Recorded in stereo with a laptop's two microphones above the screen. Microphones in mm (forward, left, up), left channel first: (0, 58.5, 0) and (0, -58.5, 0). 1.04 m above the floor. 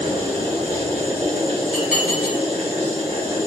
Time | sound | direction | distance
0.0 | a machine running | 60° right (ahead or behind) | 1.2 m
1.7 | dishes clattering | 5° right (ahead or behind) | 1.0 m